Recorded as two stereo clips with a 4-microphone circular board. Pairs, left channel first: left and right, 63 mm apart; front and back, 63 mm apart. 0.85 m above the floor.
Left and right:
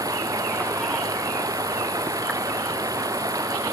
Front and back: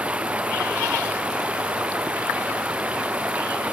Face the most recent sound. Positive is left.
turn(degrees=-110)